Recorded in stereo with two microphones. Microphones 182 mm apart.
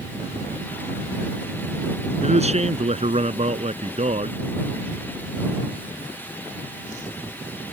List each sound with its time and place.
2.2 s a man speaking: 35° right (ahead or behind)